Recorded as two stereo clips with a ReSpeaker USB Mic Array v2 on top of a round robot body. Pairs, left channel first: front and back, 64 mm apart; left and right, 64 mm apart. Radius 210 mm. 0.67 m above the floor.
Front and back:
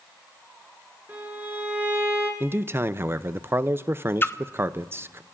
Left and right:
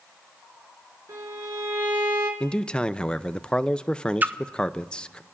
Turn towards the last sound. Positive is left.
turn(degrees=-40)